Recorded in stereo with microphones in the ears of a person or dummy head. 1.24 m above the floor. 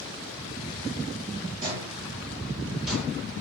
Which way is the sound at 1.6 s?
35° right (ahead or behind).